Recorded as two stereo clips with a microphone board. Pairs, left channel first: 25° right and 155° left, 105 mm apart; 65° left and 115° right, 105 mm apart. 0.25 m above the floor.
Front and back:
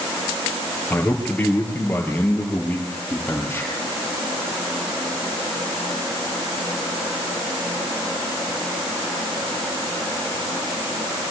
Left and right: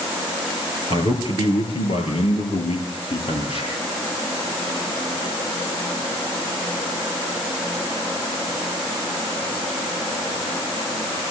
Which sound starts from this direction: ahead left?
A man speaking, at 0.9 s.